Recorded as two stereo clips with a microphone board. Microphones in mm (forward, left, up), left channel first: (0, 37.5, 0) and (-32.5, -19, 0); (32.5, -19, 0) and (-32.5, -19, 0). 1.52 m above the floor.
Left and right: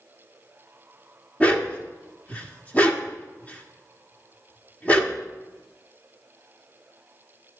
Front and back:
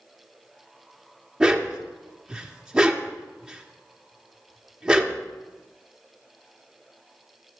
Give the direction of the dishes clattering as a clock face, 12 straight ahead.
No dishes clattering in this recording.